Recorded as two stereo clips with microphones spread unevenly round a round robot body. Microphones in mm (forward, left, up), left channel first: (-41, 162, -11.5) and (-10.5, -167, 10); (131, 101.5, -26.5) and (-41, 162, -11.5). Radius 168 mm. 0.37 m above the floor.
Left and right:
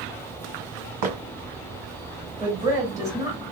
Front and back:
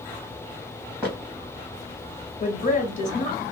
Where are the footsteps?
110° right, 1.5 m.